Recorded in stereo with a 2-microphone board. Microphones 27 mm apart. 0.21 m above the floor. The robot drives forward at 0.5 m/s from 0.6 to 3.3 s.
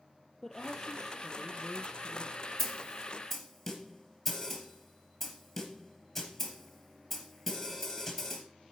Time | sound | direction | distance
0.4 | a woman speaking | 10° left (ahead or behind) | 4 m
2.6 | a snare drum | centre (ahead or behind) | 3 m